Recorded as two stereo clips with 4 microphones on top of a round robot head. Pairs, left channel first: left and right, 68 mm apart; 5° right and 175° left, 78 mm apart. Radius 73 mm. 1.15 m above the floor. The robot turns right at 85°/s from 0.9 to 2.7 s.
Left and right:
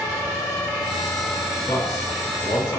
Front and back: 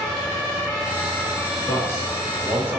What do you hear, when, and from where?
1.7 s a man speaking: 35° left, 3 m; by 2.8 s 120° left, 3 m